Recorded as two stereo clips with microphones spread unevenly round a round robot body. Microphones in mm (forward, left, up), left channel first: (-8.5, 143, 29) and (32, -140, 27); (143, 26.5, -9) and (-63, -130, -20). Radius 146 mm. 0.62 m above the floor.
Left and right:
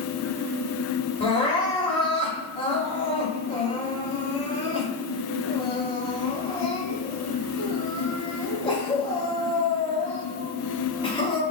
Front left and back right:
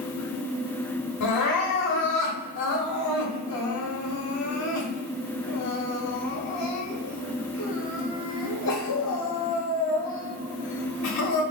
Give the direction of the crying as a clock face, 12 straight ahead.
11 o'clock.